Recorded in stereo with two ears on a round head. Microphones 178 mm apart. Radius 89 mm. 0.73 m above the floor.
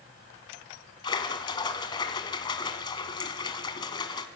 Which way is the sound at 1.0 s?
25° left (ahead or behind).